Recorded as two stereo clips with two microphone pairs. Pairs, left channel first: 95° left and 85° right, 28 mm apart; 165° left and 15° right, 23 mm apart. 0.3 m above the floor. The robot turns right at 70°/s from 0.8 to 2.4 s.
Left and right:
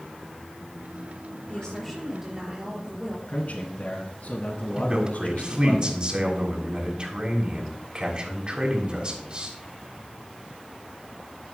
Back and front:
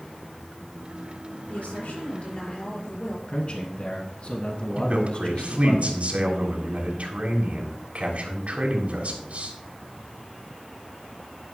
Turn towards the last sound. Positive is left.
turn(degrees=-30)